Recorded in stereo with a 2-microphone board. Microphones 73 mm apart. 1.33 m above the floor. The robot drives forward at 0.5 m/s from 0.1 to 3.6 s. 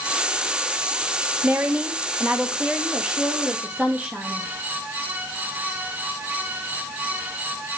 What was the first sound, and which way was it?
A woman speaking, 25° right (ahead or behind).